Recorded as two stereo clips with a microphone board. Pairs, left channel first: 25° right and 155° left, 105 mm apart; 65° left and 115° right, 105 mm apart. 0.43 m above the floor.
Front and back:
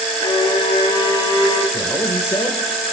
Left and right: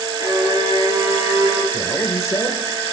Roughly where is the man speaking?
Ahead left.